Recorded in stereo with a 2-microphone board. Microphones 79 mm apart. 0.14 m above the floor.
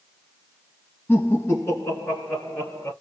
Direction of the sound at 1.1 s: 25° left (ahead or behind).